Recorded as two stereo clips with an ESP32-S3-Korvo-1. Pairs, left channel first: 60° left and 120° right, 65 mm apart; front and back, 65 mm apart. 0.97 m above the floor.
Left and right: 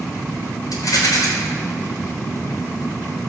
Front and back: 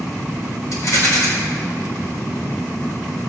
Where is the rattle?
35° left, 5 m.